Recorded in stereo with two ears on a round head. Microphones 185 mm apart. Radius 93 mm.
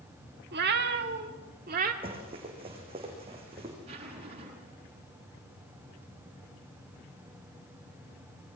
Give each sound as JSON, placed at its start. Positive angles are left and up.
{"t": 0.5, "sound": "a cat meowing", "side_deg": -50, "distance_m": 1.6}
{"t": 2.0, "sound": "running footsteps", "side_deg": -30, "distance_m": 6.5}
{"t": 3.9, "sound": "a zipper", "side_deg": -30, "distance_m": 9.0}